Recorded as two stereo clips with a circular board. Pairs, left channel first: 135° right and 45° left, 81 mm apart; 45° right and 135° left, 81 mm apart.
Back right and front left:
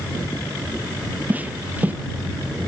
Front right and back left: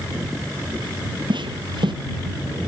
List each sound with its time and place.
1.3 s footsteps: 115° left